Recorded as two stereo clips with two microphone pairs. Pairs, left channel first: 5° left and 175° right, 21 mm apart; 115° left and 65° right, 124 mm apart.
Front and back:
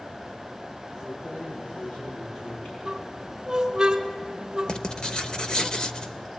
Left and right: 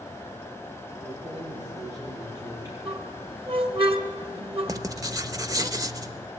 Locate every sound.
1.0 s keys jangling: straight ahead, 8.5 m
2.9 s a squeak: 110° right, 1.5 m
4.7 s writing: 15° right, 1.0 m